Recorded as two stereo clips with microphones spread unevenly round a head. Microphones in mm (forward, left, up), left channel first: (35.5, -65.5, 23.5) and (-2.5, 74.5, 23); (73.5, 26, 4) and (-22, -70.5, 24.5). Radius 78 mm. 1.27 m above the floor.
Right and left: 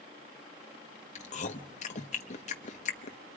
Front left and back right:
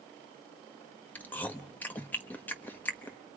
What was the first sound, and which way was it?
Chewing, 35° right.